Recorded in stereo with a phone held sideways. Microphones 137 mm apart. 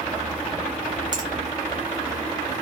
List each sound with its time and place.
1.1 s a finger snap: 30° right (ahead or behind), 1.1 m